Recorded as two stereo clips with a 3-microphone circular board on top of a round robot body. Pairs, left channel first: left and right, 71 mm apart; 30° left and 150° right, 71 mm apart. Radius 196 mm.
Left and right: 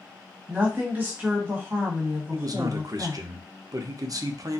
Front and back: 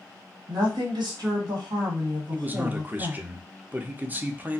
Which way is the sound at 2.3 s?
90° right.